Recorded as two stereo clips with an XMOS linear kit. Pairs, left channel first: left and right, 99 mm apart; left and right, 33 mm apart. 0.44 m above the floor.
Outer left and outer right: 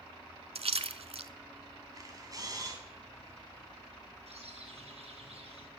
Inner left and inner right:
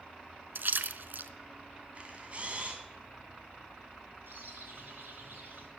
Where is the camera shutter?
35° right (ahead or behind), 3 m.